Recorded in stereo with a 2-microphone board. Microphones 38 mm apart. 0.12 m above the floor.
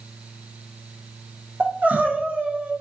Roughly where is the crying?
Right.